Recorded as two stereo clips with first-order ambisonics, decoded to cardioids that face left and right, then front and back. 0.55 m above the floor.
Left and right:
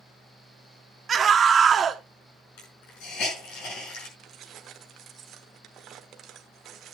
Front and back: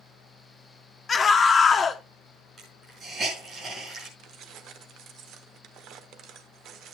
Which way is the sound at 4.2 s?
140° right.